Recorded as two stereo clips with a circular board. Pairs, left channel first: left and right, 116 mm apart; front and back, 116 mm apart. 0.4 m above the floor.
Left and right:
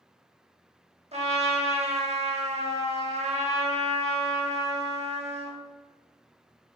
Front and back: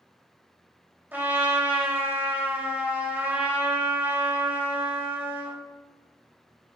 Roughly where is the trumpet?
Right.